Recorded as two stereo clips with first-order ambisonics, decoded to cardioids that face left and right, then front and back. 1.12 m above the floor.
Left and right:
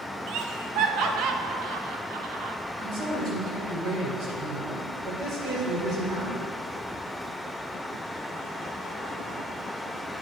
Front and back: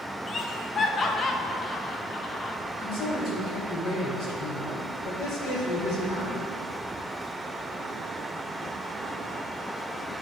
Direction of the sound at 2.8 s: 40° right.